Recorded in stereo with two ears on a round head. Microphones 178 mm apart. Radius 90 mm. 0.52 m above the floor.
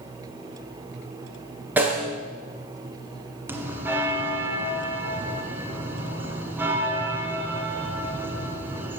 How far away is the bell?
About 1.4 m.